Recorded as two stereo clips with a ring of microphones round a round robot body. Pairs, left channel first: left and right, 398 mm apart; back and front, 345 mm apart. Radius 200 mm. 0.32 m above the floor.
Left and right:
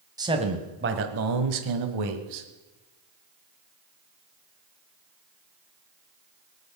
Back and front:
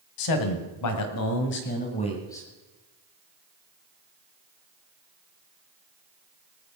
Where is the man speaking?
170° right, 2 m; by 2.5 s 95° right, 2 m.